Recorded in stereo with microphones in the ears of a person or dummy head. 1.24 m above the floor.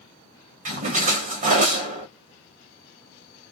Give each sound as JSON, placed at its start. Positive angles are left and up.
{"t": 0.7, "sound": "a splash", "side_deg": -45, "distance_m": 0.9}